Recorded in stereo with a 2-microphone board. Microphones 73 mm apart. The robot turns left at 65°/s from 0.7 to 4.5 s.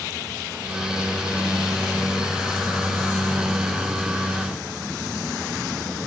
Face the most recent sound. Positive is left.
No sound to turn to.